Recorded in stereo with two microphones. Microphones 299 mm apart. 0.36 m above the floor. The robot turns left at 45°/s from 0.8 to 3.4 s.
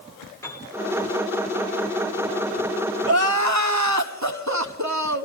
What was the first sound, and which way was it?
A piano, 10° left (ahead or behind).